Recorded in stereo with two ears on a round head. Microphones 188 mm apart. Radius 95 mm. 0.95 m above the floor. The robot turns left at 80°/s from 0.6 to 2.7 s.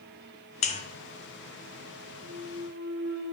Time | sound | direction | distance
0.6 | a buzzer | 35° left (ahead or behind) | 0.7 m
2.2 | a clunk | 20° right | 1.6 m